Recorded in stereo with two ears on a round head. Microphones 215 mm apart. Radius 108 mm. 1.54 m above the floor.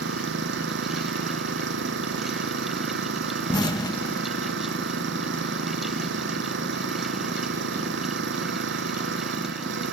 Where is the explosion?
15° left (ahead or behind).